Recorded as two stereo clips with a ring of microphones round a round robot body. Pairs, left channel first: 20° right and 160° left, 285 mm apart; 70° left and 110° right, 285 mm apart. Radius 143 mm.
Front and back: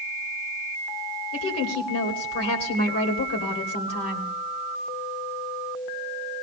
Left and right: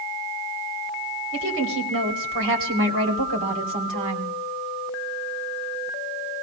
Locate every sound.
1.3 s a woman speaking: 65° right, 3 m